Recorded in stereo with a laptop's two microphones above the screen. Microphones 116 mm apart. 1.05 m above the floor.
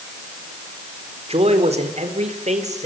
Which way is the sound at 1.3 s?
65° right (ahead or behind).